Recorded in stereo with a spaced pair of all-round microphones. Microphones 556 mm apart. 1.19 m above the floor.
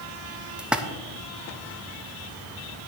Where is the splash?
Centre (ahead or behind), 0.6 m.